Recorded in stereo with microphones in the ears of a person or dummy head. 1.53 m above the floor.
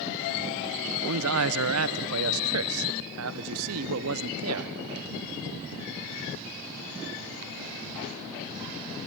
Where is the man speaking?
80° right, 1.0 m.